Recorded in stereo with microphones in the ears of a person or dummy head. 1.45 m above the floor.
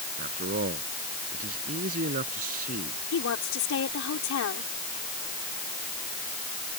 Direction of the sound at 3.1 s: 70° left (ahead or behind).